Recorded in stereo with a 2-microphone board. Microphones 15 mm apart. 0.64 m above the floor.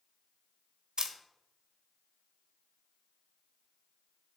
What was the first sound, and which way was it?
A camera shutter, 75° right (ahead or behind).